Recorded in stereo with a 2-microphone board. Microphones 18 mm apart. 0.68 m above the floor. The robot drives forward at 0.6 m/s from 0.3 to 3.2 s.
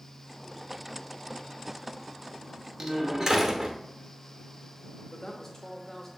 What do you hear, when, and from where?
2.8 s a door slam: 50° right (ahead or behind), 0.9 m; by 3.8 s 40° right (ahead or behind), 1.0 m
5.1 s a woman speaking: 20° left (ahead or behind), 0.8 m